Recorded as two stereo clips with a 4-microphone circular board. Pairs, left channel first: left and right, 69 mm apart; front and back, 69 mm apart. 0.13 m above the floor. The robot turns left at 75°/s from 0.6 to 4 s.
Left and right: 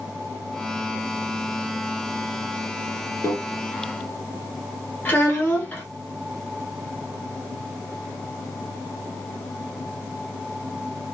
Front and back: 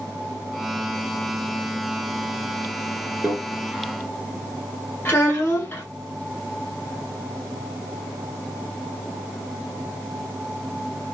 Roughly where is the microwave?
Left.